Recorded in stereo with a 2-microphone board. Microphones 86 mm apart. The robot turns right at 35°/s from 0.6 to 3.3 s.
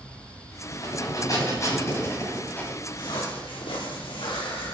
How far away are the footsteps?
About 4.5 m.